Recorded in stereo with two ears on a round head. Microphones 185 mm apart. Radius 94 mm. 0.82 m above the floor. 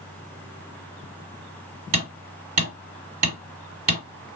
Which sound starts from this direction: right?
Hammering, at 1.9 s.